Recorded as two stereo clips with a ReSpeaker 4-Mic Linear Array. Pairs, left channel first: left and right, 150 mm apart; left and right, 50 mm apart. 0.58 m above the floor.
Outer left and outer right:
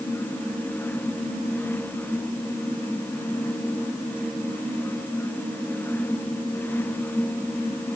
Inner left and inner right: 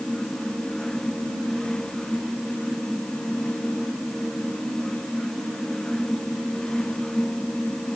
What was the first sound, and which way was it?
Only background noise.